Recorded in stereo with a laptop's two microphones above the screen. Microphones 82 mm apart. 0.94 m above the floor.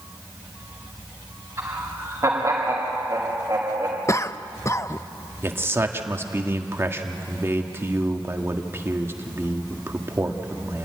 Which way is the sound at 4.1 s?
35° left (ahead or behind).